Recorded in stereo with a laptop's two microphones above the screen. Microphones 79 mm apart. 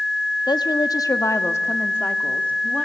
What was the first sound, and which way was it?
A woman speaking, 65° left (ahead or behind).